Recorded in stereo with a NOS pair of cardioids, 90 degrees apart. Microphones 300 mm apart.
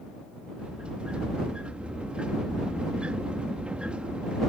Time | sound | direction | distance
0.6 | a sliding door | 5° right | ?